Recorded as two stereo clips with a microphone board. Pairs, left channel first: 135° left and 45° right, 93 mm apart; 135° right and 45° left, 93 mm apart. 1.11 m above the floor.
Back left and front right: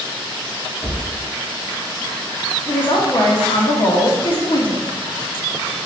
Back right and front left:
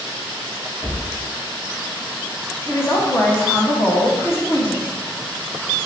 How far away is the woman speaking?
About 1.0 m.